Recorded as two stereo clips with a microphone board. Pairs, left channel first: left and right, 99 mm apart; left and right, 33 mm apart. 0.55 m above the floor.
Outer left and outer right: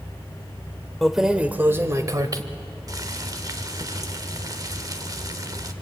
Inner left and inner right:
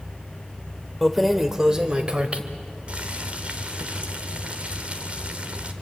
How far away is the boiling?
About 1.6 m.